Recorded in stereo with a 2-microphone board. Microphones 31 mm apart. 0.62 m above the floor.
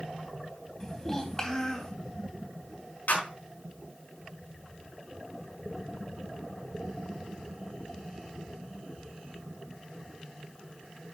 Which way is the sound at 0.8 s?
20° left (ahead or behind).